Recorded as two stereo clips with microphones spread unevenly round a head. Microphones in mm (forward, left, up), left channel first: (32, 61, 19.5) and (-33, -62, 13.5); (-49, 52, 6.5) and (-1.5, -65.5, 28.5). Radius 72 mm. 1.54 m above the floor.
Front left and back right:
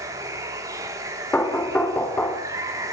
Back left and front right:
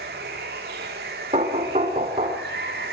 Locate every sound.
0.0 s running water: 50° right, 4 m
1.3 s knocking: 15° right, 3.5 m